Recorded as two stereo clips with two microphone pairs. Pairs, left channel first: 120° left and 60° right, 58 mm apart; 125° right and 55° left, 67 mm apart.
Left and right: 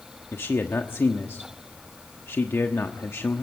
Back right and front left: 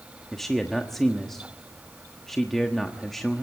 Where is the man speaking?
150° left, 1.2 m.